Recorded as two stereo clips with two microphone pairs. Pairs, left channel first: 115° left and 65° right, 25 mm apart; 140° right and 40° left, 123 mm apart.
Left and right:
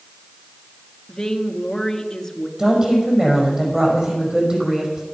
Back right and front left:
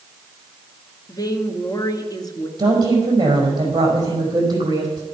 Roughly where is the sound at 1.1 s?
Behind.